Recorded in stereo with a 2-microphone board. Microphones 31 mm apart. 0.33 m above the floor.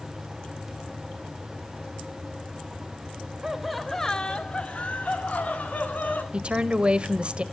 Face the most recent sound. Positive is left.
turn(degrees=-35)  # may be behind; listen again after turning